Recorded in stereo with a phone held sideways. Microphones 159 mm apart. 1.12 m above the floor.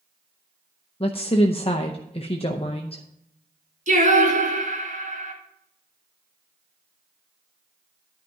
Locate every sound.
1.0 s a woman speaking: 35° left (ahead or behind), 0.7 m
3.9 s singing: 55° right (ahead or behind), 2 m